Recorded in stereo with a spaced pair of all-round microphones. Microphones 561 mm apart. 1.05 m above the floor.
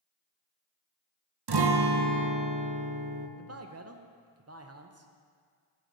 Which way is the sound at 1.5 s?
45° right (ahead or behind).